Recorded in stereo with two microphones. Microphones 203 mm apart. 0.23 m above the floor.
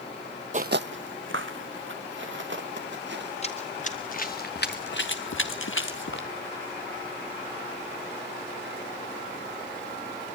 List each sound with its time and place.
0.5 s footsteps: 40° right (ahead or behind), 0.5 m; by 3.3 s 65° right (ahead or behind), 3.5 m
3.4 s running footsteps: 30° left (ahead or behind), 2.5 m; by 6.3 s 65° left (ahead or behind), 1.7 m